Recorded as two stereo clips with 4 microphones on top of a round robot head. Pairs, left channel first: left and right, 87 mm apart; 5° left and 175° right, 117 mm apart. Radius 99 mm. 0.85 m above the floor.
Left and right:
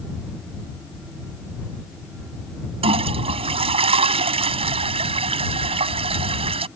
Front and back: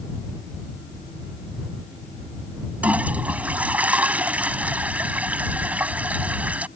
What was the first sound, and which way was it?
A toilet flushing, 95° right.